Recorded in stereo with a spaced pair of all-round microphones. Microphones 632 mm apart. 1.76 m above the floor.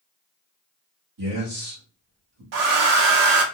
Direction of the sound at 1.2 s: 40° right (ahead or behind).